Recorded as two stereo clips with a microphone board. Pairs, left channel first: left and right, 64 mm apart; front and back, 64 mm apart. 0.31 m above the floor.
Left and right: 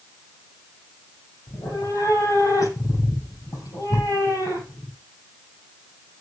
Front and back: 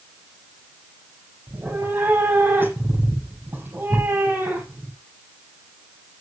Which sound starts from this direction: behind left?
A cat meowing, at 1.5 s.